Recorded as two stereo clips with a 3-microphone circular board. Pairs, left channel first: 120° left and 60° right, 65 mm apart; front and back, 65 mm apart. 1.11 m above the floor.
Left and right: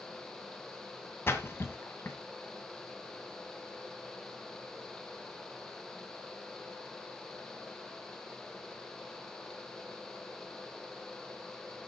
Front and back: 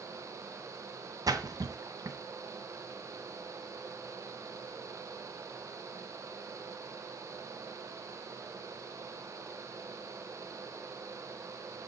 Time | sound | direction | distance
1.3 | a splash | 170° left | 2 m